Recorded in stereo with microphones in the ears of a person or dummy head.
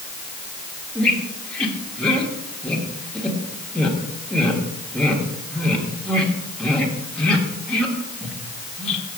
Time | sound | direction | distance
0.9 | a squeak | 5° left (ahead or behind) | 1.6 m